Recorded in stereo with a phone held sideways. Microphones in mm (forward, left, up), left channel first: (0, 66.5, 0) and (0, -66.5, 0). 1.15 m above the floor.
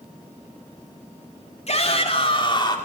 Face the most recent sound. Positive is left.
turn(degrees=35)  # may be behind; listen again after turning